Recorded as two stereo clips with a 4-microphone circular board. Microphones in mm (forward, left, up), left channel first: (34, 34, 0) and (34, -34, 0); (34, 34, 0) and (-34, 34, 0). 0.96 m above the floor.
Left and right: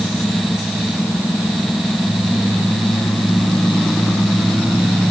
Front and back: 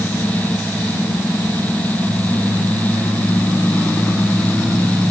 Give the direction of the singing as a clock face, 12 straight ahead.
No singing in this recording.